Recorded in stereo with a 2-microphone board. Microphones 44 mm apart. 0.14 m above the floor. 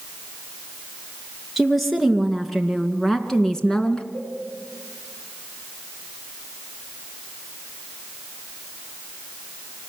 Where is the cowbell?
65° left (ahead or behind), 9.5 m.